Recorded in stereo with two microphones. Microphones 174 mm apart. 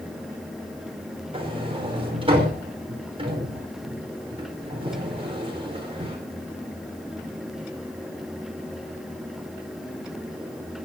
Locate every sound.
1.3 s a sliding door: 30° right (ahead or behind), 4.5 m